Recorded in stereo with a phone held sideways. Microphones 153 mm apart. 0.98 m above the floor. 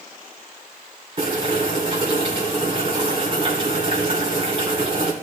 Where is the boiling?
40° right (ahead or behind), 3.5 m.